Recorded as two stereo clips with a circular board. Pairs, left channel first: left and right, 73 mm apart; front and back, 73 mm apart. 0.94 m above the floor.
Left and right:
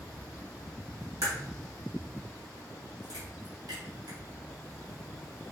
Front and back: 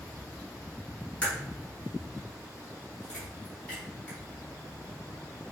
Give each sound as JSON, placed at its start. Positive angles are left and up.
{"t": 1.2, "sound": "a crack", "azimuth_deg": -70, "distance_m": 3.5}